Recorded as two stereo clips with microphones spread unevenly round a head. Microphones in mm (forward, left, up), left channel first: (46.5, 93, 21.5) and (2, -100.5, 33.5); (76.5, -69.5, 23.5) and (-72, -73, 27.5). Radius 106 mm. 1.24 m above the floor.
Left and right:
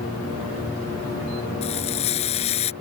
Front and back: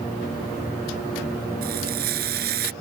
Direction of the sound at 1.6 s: 140° left.